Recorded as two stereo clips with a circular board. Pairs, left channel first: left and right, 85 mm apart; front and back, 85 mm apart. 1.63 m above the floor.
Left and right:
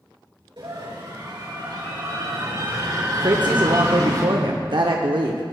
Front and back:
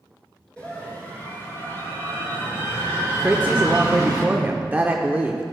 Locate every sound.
0.6 s a scream: 75° right, 3 m; by 4.2 s 45° right, 5 m
3.2 s a woman speaking: 110° right, 0.6 m